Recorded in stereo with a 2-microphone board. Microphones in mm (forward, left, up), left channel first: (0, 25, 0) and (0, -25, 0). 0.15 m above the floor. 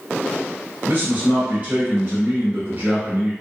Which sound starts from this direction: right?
A man speaking, at 0.8 s.